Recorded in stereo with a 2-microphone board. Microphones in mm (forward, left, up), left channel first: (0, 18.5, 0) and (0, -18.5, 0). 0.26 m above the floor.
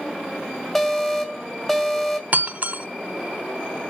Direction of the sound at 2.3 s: 50° right (ahead or behind).